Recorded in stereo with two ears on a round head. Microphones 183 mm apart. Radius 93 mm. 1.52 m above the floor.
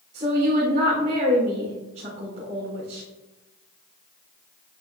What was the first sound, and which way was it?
A woman speaking, 35° right (ahead or behind).